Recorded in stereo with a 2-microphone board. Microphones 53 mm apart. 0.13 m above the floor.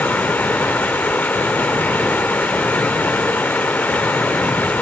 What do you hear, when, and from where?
0.0 s running water: 30° left (ahead or behind), 2 m